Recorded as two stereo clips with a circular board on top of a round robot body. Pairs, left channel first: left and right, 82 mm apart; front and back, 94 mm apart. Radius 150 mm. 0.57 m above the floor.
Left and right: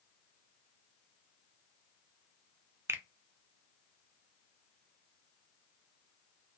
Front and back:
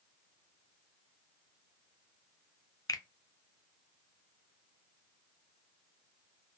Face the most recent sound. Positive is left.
turn(degrees=-40)